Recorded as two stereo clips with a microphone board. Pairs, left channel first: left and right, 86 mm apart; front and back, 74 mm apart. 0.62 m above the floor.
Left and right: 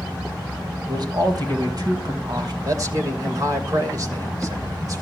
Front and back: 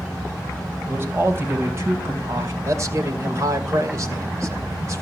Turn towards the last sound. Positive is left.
turn(degrees=-135)